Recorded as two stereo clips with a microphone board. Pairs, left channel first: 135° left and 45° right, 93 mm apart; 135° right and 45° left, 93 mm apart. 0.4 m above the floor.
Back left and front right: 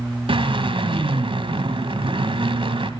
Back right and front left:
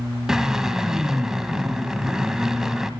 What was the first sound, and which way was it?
A drill, 40° right.